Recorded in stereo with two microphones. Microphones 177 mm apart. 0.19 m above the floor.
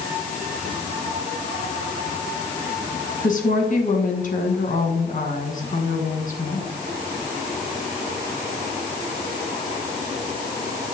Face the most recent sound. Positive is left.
turn(degrees=50)  # may be behind; listen again after turning